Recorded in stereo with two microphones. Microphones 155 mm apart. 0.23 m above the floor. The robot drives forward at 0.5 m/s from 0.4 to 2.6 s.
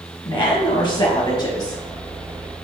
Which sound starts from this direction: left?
A woman speaking, at 0.2 s.